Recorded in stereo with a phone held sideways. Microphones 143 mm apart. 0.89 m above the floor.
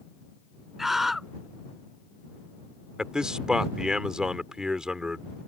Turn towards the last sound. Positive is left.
turn(degrees=-5)  # may be behind; listen again after turning